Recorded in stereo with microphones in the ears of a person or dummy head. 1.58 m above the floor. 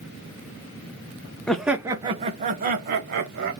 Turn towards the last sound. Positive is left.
turn(degrees=-55)  # may be behind; listen again after turning